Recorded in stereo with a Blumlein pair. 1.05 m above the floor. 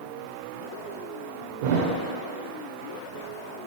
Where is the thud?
50° right, 1.5 m.